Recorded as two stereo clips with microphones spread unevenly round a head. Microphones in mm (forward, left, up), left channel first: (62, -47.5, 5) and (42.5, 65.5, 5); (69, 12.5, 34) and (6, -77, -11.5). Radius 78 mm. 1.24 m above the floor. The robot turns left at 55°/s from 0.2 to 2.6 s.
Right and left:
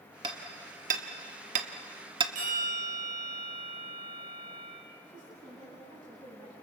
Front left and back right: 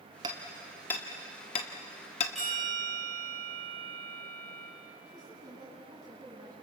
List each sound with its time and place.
0.2 s hammering: 165° left, 1.5 m; by 2.2 s 55° left, 1.5 m
2.4 s a bell: 145° left, 8 m; by 4.7 s 130° left, 8 m
5.0 s a woman speaking: 165° left, 9.5 m